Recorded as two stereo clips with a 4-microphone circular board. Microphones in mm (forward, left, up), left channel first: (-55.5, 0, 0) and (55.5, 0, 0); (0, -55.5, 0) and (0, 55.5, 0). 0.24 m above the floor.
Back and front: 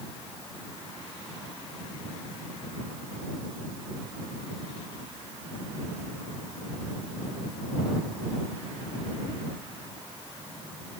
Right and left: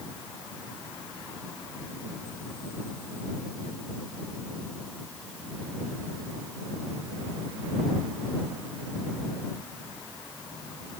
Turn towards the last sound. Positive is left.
No sound to turn to.